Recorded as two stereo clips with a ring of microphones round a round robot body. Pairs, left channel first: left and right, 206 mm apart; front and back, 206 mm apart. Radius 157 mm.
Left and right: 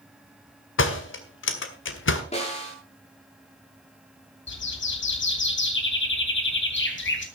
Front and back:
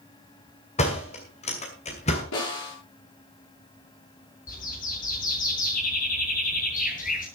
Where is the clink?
No clink in this recording.